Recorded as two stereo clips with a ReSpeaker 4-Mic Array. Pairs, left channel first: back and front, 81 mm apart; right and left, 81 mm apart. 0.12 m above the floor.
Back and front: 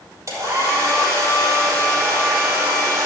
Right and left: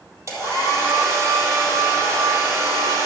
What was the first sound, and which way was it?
A hair dryer, 45° left.